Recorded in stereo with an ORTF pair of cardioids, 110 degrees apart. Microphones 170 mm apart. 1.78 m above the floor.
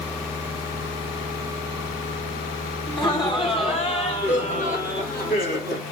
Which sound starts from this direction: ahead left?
Laughter, at 2.9 s.